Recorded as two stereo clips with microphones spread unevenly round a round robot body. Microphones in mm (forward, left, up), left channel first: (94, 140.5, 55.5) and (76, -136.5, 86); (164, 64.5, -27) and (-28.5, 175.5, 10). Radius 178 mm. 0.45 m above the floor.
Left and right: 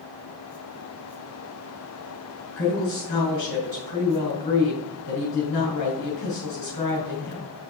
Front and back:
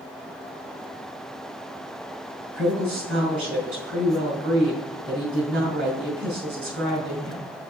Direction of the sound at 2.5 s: 125° left.